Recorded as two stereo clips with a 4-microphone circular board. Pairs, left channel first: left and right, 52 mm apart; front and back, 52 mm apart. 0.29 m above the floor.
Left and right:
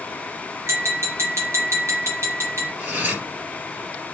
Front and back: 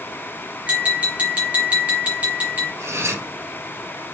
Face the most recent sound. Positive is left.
turn(degrees=-145)